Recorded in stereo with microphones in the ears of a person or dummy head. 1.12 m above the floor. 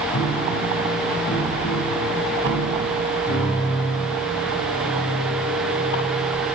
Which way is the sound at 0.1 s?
80° left.